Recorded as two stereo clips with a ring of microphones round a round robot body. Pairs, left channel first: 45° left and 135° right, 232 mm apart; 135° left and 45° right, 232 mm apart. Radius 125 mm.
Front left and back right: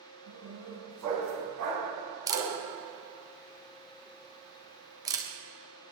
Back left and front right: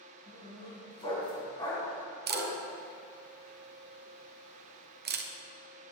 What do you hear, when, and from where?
0.3 s a dog barking: 155° right, 3 m
2.3 s a camera shutter: 65° right, 1.0 m